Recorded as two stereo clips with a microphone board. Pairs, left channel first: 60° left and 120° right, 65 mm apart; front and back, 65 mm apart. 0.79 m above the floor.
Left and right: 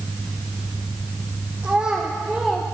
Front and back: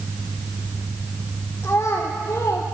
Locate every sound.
1.6 s a child speaking: 55° right, 1.6 m; by 2.6 s 30° right, 1.4 m